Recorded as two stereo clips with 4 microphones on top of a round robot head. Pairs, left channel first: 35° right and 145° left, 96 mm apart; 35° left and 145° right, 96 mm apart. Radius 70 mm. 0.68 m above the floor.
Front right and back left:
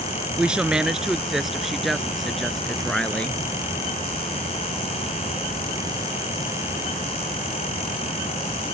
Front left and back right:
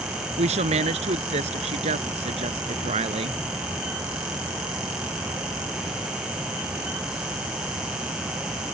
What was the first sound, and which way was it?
A woman speaking, 135° right.